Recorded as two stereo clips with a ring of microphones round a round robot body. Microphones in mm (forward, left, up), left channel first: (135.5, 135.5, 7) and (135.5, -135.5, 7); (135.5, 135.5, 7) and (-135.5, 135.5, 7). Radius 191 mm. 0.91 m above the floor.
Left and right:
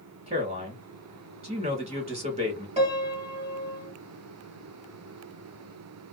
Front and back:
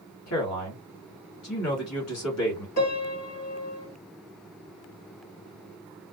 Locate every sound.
0.3 s a man speaking: 35° right, 1.5 m
2.8 s a piano: 25° right, 1.2 m